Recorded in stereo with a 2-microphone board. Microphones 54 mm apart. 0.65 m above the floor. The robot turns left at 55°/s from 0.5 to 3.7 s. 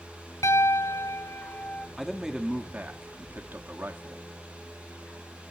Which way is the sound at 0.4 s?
105° left.